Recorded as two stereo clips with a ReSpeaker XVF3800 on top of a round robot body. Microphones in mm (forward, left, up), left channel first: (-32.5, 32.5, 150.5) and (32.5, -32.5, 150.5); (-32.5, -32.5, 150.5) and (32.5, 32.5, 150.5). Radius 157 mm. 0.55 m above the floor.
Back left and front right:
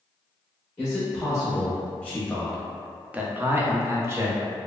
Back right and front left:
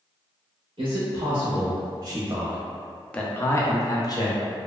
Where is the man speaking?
70° left, 1.2 m; by 4.4 s 105° right, 1.0 m.